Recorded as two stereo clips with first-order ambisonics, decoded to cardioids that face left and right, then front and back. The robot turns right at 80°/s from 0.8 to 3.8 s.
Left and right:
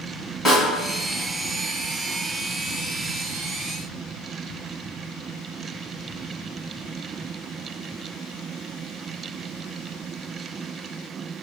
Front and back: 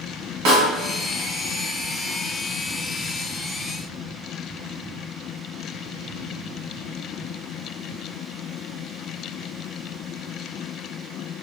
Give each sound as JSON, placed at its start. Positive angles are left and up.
{"t": 0.5, "sound": "a snare drum", "azimuth_deg": 165, "distance_m": 1.6}